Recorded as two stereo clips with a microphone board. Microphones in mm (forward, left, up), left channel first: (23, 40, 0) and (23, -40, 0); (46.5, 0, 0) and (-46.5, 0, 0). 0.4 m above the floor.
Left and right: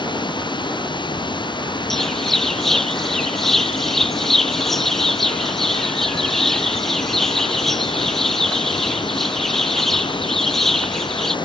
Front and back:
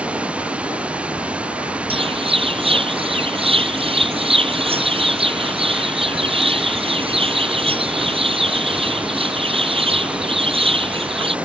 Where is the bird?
175° left.